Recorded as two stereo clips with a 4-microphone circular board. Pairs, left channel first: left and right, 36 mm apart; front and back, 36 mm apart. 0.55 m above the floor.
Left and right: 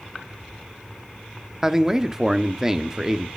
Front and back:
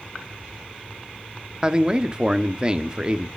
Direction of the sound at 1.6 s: 150° right.